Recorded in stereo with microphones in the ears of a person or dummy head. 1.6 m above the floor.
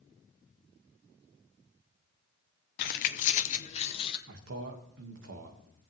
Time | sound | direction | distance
2.8 | keys jangling | 40° left (ahead or behind) | 0.6 m
4.3 | a man speaking | 75° right (ahead or behind) | 1.9 m